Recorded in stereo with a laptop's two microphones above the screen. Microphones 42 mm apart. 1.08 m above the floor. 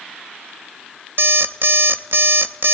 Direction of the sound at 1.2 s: 60° right (ahead or behind).